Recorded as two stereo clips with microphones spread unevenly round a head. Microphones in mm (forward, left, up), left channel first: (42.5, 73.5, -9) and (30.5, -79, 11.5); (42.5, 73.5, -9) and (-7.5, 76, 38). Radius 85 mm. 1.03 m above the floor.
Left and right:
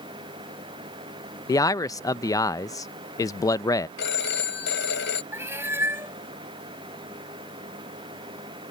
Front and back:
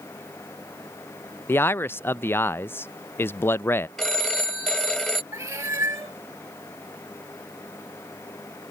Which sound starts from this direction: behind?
A cat meowing, at 5.3 s.